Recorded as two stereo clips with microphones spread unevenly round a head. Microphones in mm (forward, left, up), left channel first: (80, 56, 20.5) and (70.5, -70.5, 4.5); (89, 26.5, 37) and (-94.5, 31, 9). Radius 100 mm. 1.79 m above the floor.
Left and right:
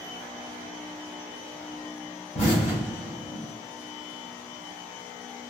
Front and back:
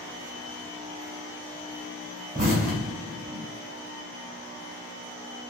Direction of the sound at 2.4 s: 130° left.